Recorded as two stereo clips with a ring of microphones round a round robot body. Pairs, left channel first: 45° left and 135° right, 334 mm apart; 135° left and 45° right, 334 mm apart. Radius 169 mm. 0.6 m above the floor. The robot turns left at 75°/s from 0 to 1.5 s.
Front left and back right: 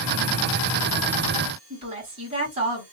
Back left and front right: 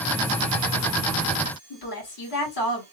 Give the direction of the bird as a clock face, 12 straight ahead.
I don't hear a bird.